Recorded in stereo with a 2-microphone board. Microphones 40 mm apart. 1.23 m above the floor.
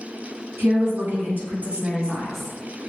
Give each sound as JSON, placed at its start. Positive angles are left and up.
{"t": 0.6, "sound": "a woman speaking", "side_deg": -65, "distance_m": 1.5}